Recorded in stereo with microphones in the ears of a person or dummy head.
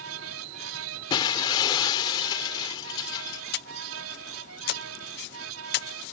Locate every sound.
0.0 s a fan: 75° right (ahead or behind)
1.1 s breaking glass: 20° left (ahead or behind)
3.5 s breathing: 65° left (ahead or behind)